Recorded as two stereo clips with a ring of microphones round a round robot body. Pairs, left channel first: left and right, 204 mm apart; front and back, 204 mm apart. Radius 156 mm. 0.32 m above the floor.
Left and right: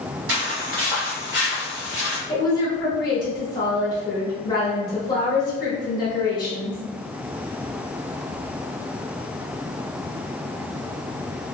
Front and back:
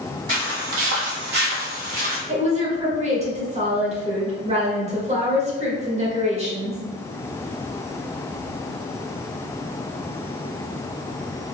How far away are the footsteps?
About 0.7 m.